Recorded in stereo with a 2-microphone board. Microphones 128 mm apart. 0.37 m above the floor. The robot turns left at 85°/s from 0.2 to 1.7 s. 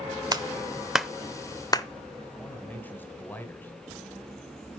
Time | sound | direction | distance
0.3 | a clap | 30° right (ahead or behind) | 0.7 m
2.4 | a man speaking | 15° left (ahead or behind) | 1.7 m